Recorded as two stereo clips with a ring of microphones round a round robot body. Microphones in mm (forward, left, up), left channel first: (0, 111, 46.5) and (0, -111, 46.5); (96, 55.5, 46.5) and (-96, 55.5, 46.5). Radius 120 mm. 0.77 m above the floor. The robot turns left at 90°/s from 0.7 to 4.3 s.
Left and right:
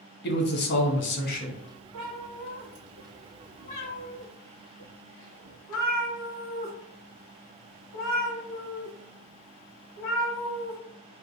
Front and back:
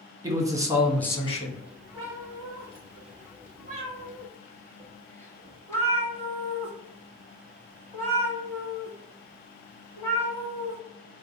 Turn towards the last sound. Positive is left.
turn(degrees=75)